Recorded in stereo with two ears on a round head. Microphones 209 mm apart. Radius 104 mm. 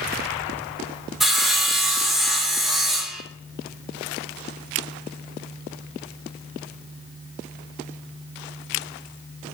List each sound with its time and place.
1.2 s sawing: centre (ahead or behind), 1.6 m